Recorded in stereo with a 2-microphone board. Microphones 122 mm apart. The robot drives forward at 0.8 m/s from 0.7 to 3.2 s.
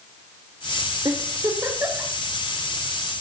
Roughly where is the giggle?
Right.